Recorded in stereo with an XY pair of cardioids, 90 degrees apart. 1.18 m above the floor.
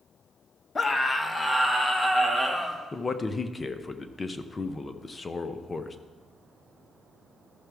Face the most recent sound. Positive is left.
turn(degrees=30)